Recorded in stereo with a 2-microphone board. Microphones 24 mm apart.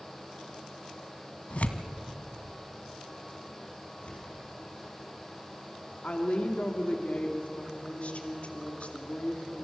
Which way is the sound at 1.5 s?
65° left (ahead or behind).